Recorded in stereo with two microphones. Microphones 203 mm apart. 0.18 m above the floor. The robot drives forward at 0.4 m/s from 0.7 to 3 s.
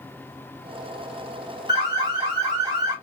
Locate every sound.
1.7 s an alarm: 20° right (ahead or behind), 1.3 m